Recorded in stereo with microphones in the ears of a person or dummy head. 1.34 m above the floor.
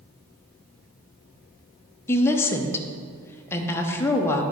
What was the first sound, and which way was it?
A woman speaking, 15° left (ahead or behind).